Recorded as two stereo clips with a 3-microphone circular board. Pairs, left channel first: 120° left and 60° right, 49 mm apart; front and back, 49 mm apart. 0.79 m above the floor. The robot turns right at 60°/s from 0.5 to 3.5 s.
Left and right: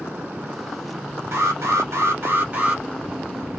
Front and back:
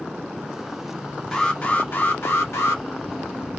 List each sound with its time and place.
1.3 s an alarm: 80° right, 1.2 m; by 2.8 s 10° left, 1.2 m